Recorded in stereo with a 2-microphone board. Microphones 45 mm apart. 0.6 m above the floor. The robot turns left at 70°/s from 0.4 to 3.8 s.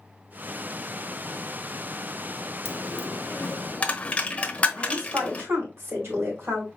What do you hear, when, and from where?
2.6 s a dropped coin: 75° left (ahead or behind), 1.0 m; by 5.5 s 25° left (ahead or behind), 1.0 m
4.8 s a woman speaking: 65° right (ahead or behind), 2.5 m